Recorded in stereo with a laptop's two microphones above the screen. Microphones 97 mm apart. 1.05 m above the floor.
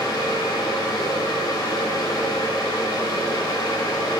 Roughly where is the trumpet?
No trumpet in this recording.